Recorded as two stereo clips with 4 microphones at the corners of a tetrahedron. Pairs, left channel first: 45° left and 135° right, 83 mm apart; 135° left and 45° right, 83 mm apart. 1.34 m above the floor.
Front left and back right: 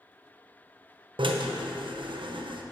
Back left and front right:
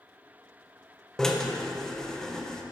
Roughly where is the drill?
Behind right.